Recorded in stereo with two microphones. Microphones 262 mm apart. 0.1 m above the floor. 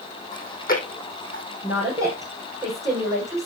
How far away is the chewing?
About 3 m.